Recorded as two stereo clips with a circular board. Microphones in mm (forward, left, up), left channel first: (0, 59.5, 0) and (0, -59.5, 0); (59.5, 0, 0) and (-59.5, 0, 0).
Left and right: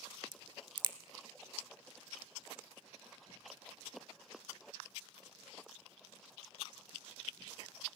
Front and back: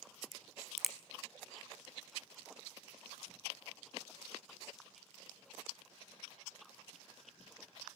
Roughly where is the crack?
Right.